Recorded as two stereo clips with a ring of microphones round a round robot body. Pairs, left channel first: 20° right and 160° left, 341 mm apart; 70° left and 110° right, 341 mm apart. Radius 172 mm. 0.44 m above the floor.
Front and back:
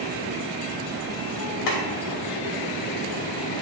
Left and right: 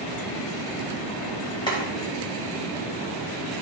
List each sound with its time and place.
1.7 s boiling: 10° right, 2.5 m